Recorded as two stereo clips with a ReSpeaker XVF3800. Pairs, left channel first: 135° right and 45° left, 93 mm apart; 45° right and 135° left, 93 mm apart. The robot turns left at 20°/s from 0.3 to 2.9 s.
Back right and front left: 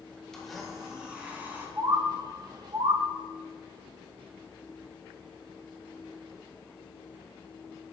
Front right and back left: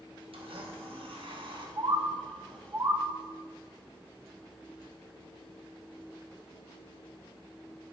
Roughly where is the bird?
Left.